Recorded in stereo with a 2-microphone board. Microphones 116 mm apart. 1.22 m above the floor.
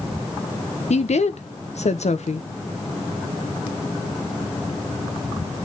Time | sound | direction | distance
0.9 | a woman speaking | 70° left (ahead or behind) | 1.0 m